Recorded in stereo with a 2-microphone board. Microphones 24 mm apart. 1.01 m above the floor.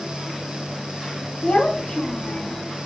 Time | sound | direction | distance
1.4 | a child speaking | 50° left (ahead or behind) | 0.6 m